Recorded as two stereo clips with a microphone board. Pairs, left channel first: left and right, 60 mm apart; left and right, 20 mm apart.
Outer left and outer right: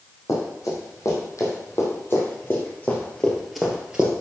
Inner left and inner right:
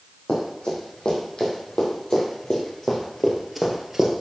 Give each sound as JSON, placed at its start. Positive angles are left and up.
{"t": 0.3, "sound": "running footsteps", "side_deg": 60, "distance_m": 5.5}